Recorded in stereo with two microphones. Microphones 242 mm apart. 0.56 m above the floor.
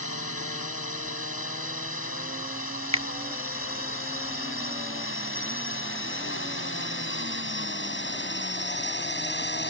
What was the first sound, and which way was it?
A drone, 70° left (ahead or behind).